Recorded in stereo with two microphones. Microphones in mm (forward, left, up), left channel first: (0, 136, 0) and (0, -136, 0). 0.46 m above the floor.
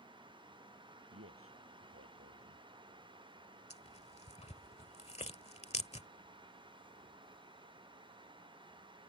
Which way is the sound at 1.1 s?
50° right (ahead or behind).